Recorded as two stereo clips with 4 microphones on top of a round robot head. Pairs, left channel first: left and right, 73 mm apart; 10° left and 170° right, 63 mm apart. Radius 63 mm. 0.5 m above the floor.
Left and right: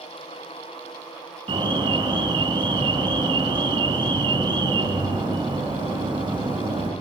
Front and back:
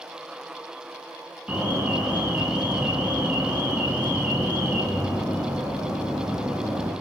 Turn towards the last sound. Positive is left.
turn(degrees=-100)